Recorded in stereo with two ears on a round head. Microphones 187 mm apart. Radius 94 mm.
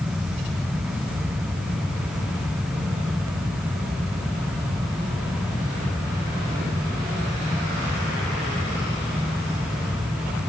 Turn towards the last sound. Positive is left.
No sound to turn to.